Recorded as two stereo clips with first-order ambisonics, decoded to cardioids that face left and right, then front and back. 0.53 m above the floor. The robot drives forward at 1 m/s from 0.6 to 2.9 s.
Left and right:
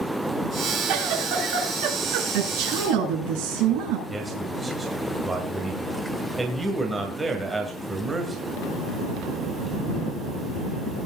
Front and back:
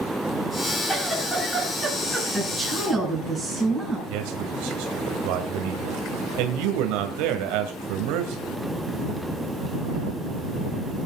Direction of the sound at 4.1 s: 170° right.